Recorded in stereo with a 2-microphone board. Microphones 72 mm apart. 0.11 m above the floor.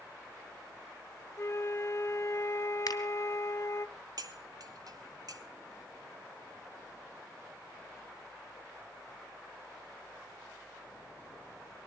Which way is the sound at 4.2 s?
60° right (ahead or behind).